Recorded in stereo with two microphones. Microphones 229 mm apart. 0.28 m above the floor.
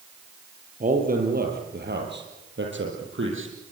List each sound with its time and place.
0.8 s a man speaking: 35° right (ahead or behind), 6.5 m; by 3.5 s 60° right (ahead or behind), 8 m